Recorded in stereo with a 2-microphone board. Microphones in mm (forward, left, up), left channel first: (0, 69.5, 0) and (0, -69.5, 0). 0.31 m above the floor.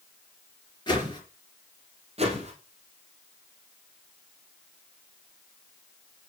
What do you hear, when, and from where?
0.9 s a whoosh: 30° left (ahead or behind), 3.5 m
2.2 s a whoosh: 45° right (ahead or behind), 3.5 m